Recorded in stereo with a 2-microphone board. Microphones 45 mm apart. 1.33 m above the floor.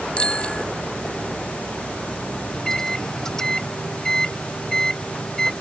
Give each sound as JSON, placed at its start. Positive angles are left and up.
{"t": 0.2, "sound": "a bicycle bell", "side_deg": 25}
{"t": 2.5, "sound": "a microwave", "side_deg": 15}